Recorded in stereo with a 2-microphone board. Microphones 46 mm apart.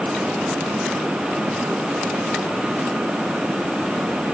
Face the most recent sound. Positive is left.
No sound to turn to.